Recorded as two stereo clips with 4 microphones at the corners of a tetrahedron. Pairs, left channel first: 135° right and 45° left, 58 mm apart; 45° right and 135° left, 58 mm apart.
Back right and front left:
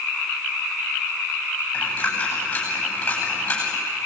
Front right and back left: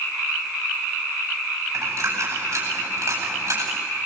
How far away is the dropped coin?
About 9 m.